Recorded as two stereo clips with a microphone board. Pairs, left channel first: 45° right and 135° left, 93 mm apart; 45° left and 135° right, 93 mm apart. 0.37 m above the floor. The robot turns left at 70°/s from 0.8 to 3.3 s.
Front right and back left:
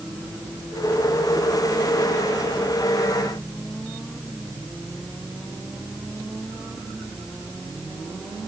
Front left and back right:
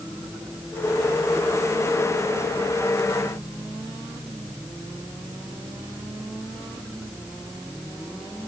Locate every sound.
Only background noise.